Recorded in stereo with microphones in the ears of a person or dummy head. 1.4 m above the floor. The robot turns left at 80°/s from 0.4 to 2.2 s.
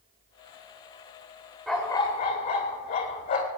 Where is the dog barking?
175° left, 3 m; by 3.5 s 130° left, 3 m.